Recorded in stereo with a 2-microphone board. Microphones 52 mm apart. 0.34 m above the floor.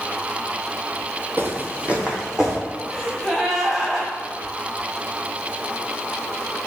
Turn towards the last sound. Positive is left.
turn(degrees=-10)  # may be behind; listen again after turning